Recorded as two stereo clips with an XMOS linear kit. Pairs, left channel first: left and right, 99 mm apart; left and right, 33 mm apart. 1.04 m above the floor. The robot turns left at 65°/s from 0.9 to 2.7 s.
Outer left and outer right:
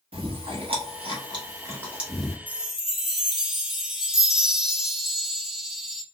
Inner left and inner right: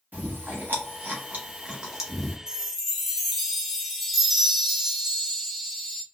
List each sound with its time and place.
0.1 s chewing: 70° right (ahead or behind), 1.1 m; by 2.4 s 10° left (ahead or behind), 1.1 m
2.5 s a chime: 20° right (ahead or behind), 0.7 m; by 6.0 s 5° right (ahead or behind), 0.7 m